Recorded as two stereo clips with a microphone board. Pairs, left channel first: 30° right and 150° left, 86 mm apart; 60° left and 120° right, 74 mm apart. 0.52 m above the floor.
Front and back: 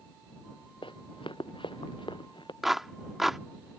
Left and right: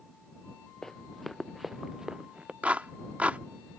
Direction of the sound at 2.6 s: 130° right.